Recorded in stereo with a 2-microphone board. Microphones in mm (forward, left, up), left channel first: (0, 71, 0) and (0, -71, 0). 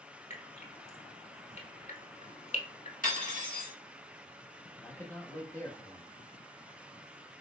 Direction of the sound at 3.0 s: 70° left (ahead or behind).